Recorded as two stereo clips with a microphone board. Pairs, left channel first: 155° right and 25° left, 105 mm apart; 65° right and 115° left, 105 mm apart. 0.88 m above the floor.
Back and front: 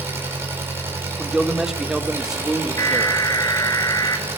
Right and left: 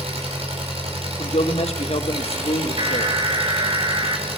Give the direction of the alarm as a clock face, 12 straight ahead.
7 o'clock.